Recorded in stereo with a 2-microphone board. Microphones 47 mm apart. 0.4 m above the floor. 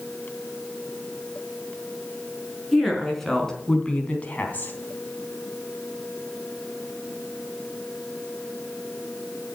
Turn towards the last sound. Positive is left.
turn(degrees=45)  # may be behind; listen again after turning